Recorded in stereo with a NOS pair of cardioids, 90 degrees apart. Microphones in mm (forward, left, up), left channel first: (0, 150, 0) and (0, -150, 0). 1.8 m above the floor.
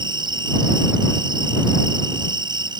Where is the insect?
15° right.